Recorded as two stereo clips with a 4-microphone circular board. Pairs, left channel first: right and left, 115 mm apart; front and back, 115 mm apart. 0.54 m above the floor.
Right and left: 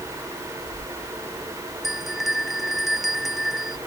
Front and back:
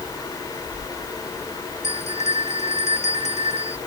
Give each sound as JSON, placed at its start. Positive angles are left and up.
{"t": 1.8, "sound": "a bell", "azimuth_deg": 0}